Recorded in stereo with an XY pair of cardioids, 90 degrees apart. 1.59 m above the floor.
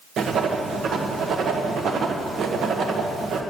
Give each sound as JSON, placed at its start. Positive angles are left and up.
{"t": 0.2, "sound": "writing", "azimuth_deg": -70, "distance_m": 1.5}